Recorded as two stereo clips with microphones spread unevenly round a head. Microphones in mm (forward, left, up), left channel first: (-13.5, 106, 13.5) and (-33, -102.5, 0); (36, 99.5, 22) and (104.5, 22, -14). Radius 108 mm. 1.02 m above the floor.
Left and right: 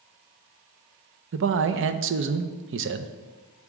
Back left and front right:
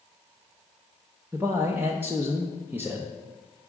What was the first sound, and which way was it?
A man speaking, 120° right.